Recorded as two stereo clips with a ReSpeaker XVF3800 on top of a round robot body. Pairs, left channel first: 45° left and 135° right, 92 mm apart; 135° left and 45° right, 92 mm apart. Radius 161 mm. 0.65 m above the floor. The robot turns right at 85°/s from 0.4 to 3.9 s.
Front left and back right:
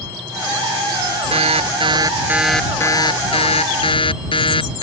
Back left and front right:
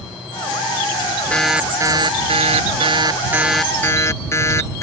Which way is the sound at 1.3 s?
145° right.